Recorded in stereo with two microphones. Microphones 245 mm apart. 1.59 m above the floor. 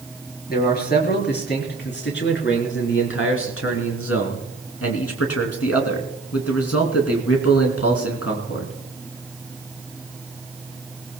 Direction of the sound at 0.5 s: 40° left (ahead or behind).